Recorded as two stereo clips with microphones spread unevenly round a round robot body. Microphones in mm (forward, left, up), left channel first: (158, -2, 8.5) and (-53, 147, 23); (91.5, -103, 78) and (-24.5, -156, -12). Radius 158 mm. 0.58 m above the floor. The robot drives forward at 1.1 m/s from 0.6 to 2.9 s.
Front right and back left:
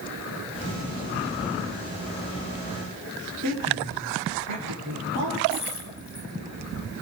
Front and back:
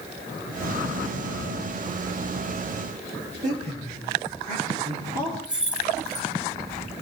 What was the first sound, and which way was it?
A woman speaking, 170° right.